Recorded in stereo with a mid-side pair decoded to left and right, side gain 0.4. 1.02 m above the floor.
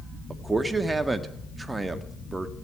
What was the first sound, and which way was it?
A man speaking, 25° right.